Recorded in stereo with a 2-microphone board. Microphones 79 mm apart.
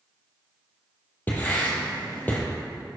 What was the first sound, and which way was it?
Writing, 25° left (ahead or behind).